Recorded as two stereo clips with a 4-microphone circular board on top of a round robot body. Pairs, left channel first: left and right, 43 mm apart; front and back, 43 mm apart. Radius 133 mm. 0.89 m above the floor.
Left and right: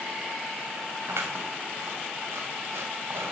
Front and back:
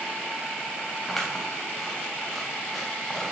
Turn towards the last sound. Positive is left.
turn(degrees=-85)